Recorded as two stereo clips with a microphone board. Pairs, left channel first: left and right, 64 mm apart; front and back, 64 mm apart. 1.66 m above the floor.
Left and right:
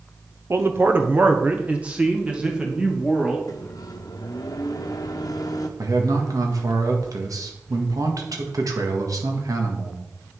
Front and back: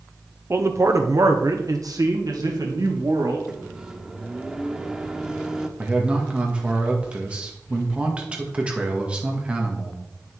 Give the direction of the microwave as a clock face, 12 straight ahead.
9 o'clock.